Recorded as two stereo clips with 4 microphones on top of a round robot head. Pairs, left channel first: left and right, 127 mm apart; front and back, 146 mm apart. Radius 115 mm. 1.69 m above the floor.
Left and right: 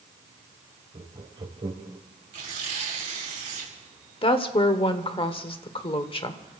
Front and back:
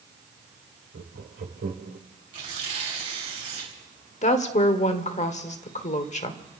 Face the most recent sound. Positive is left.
turn(degrees=40)